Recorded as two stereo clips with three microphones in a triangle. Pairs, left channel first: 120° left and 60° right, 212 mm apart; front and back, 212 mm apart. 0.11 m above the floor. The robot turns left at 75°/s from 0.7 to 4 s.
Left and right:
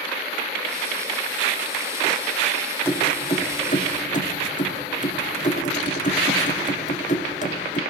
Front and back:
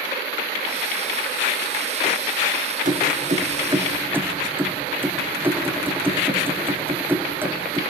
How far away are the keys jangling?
About 1.3 m.